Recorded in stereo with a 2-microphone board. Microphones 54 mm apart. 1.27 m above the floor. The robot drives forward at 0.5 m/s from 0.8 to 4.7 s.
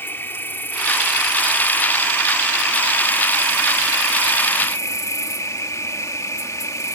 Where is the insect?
45° left (ahead or behind); by 7.0 s 75° left (ahead or behind).